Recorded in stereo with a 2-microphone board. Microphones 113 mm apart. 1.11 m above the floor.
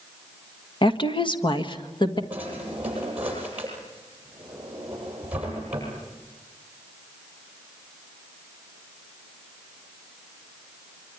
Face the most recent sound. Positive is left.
turn(degrees=-15)  # may be behind; listen again after turning